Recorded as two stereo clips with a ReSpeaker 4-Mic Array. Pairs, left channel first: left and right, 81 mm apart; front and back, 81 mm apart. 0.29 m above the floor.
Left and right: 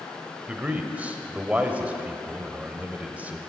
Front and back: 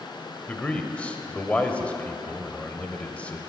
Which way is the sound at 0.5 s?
50° right.